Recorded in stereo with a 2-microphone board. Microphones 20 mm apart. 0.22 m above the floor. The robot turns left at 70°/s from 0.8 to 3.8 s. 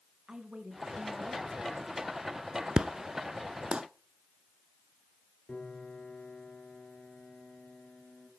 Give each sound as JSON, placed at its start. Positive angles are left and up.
{"t": 0.3, "sound": "a woman speaking", "azimuth_deg": -125, "distance_m": 1.9}
{"t": 2.8, "sound": "an explosion", "side_deg": -35, "distance_m": 0.8}
{"t": 5.5, "sound": "a piano", "side_deg": 60, "distance_m": 4.0}